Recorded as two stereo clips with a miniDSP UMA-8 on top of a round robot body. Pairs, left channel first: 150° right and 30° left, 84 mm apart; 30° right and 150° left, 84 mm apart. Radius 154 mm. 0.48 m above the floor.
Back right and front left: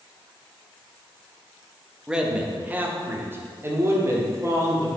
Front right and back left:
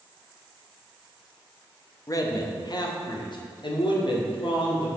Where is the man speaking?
50° right, 1.2 m; by 4.9 s 25° right, 2.5 m.